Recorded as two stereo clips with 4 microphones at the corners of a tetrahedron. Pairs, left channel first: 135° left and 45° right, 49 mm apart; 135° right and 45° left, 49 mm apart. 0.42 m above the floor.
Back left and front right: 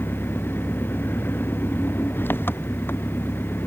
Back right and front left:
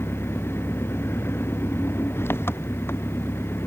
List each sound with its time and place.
0.0 s an engine running: 175° right